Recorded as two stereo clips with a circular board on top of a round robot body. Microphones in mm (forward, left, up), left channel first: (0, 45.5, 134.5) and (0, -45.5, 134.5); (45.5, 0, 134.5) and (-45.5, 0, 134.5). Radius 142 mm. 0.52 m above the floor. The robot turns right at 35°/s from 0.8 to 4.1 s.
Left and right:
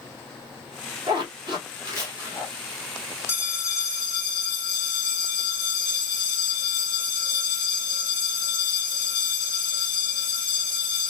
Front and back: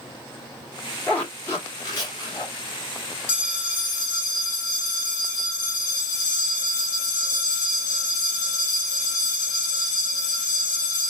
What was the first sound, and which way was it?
A zipper, 75° right.